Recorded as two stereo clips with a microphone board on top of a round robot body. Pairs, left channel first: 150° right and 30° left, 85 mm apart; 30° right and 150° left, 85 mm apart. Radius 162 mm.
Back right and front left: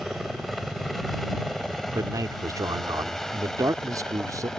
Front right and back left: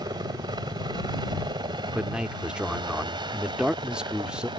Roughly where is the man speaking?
Left.